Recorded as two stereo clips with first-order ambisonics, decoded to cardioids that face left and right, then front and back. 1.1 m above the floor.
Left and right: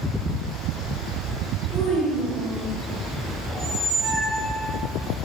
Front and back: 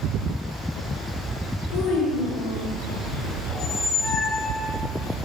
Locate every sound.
1.7 s a child speaking: 10° left, 1.4 m
3.5 s a squeak: 10° right, 1.4 m